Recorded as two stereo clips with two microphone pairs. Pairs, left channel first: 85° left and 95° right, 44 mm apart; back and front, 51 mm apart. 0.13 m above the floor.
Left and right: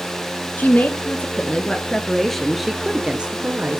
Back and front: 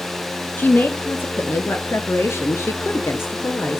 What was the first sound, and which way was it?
A woman speaking, 130° left.